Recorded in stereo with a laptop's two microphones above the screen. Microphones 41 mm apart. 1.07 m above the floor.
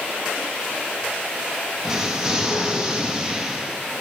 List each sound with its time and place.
1.8 s an explosion: 15° right (ahead or behind), 0.7 m